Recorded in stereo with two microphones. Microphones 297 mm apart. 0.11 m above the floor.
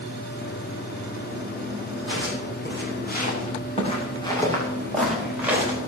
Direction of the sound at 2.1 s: 40° left (ahead or behind).